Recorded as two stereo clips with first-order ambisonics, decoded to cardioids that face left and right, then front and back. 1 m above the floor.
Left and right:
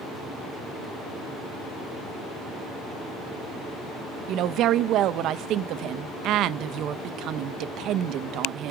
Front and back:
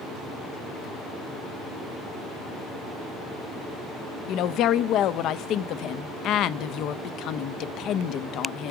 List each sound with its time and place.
4.3 s a woman speaking: 45° right, 0.5 m